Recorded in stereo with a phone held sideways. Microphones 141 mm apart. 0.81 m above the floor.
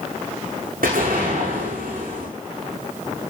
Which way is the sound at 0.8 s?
85° right.